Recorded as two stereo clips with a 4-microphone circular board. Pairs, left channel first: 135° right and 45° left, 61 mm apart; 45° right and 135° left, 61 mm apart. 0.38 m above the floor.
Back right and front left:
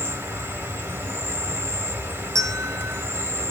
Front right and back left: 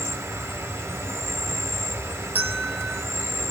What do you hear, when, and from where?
0.0 s an insect: 95° left, 0.8 m
2.4 s a bell: 75° left, 0.9 m